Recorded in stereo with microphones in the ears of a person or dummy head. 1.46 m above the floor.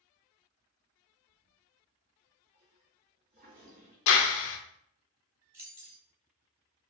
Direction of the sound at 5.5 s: 15° right (ahead or behind).